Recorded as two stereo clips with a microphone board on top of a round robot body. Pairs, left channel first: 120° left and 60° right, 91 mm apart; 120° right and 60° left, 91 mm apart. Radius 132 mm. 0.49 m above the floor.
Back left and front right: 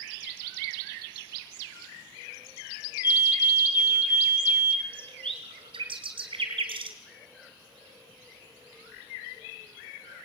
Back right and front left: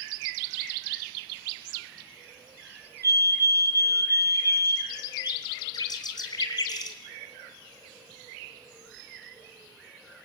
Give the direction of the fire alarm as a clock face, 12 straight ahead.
9 o'clock.